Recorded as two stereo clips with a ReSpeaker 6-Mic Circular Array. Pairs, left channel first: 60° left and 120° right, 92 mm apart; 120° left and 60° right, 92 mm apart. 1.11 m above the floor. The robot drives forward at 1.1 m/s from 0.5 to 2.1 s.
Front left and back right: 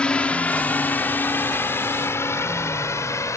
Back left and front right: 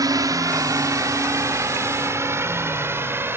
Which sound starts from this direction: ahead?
A drone, at 0.0 s.